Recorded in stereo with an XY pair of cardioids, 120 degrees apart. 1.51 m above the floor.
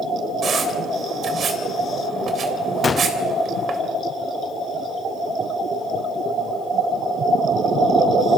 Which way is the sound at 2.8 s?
30° left.